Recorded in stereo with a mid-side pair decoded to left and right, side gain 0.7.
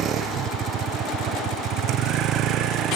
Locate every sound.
0.0 s a vehicle: 45° right; by 3.0 s 55° right